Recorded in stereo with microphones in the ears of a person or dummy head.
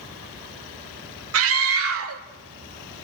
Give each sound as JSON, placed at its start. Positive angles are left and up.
{"t": 1.3, "sound": "a scream", "side_deg": -75, "distance_m": 1.8}